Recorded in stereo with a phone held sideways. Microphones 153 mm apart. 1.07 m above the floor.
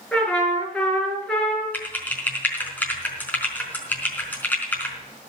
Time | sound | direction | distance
0.1 | a trumpet | 5° left (ahead or behind) | 5.5 m
1.7 | typing on a keyboard | 10° left (ahead or behind) | 4.5 m